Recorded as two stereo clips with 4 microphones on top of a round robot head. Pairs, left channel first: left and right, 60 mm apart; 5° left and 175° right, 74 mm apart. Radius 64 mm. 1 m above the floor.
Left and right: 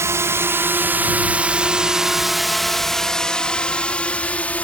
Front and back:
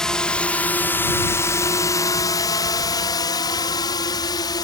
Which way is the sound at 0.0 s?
80° right.